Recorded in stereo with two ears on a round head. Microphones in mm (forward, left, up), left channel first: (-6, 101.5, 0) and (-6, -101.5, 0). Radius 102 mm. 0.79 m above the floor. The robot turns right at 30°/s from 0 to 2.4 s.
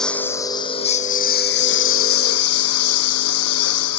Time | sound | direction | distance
0.0 | a lawn mower | straight ahead | ?